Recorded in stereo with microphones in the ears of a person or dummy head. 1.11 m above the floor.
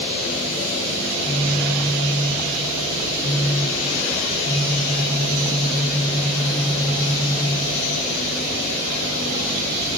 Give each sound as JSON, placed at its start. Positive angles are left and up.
{"t": 1.1, "sound": "a phone buzzing", "side_deg": 25, "distance_m": 6.0}